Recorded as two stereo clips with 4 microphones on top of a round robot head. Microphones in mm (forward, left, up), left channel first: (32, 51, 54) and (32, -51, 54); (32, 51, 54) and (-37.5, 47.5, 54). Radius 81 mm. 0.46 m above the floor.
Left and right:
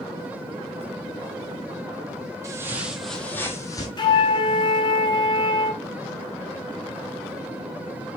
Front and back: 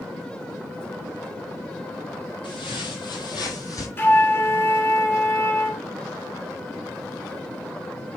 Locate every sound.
2.4 s footsteps: 35° right, 0.9 m; by 3.9 s 35° left, 1.1 m
4.0 s a flute: 55° left, 1.1 m